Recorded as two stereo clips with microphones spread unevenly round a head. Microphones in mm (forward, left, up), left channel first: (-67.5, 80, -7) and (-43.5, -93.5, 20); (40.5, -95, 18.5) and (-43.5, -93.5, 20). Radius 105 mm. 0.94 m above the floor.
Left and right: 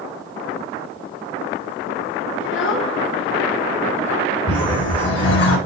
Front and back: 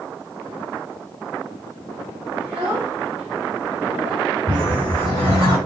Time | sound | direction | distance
2.4 | a child speaking | 100° left | 1.3 m
4.5 | a whoosh | 115° left | 4.5 m